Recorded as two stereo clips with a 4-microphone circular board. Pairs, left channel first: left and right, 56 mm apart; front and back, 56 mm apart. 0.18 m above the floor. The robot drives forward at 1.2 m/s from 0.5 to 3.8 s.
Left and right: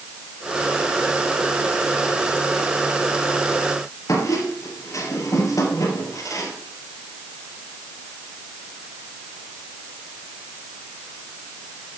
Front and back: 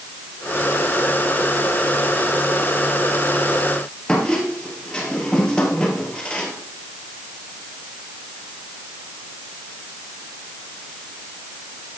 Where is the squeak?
75° left, 2.5 m.